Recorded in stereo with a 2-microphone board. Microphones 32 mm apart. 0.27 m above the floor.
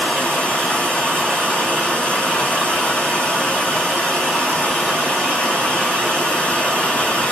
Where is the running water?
35° left (ahead or behind), 0.9 m.